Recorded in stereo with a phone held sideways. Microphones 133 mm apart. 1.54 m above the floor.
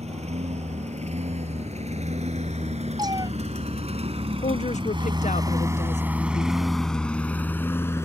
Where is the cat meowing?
30° right (ahead or behind).